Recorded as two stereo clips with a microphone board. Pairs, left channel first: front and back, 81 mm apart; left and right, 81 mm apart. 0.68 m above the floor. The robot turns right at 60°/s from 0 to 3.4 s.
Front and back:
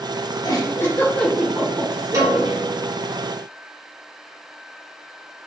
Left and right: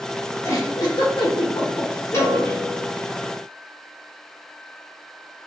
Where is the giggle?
35° left, 0.9 m; by 2.6 s 160° left, 0.9 m.